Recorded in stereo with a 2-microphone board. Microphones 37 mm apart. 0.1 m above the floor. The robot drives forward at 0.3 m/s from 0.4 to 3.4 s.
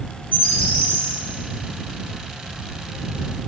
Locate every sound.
0.3 s a bird: 70° left (ahead or behind), 2 m; by 1.1 s 65° left (ahead or behind), 2 m